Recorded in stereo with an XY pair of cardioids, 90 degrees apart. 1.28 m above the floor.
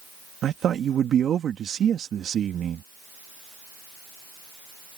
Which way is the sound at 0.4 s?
65° right.